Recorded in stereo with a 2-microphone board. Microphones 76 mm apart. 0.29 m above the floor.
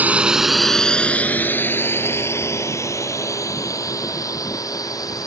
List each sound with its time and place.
0.0 s a drone: 20° right (ahead or behind); by 5.3 s 50° left (ahead or behind)